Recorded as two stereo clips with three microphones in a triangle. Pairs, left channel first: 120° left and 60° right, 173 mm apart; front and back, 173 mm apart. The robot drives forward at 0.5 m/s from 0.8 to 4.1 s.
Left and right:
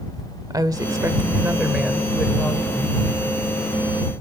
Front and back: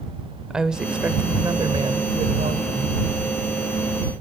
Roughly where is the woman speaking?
Right.